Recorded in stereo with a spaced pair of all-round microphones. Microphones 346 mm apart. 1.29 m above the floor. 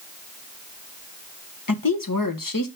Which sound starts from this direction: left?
A woman speaking, at 1.7 s.